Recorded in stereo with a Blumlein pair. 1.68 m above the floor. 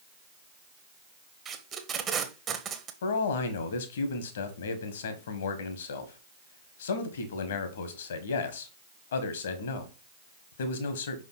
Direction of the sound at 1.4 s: 25° right.